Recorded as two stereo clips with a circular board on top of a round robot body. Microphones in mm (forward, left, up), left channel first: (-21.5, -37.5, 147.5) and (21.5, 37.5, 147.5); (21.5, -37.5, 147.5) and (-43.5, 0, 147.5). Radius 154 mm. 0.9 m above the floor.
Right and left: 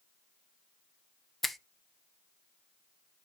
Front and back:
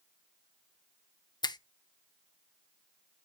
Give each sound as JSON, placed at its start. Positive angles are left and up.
{"t": 1.4, "sound": "a finger snap", "azimuth_deg": -30, "distance_m": 0.8}